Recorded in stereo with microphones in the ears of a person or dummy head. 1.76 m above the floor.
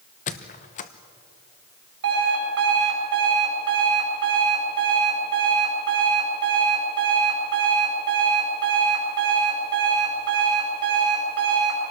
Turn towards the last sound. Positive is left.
turn(degrees=-60)  # may be behind; listen again after turning